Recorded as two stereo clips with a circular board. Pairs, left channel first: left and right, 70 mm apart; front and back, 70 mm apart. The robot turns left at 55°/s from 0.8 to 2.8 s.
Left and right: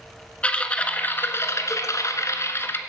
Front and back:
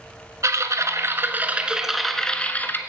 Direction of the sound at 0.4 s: 155° left.